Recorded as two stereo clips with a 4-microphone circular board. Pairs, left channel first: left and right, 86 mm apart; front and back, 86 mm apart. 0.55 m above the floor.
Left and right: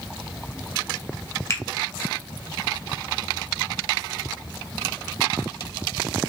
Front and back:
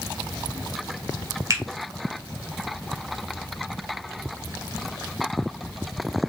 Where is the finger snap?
140° left, 1.0 m.